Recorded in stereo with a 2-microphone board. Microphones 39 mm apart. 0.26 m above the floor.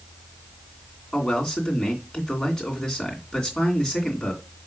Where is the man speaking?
20° left (ahead or behind), 2.5 m.